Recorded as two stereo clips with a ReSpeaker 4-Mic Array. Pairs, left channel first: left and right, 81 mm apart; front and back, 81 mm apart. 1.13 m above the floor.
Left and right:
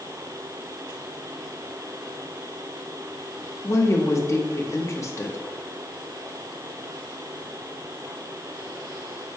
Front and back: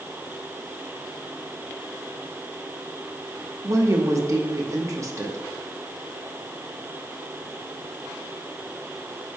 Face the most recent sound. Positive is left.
turn(degrees=140)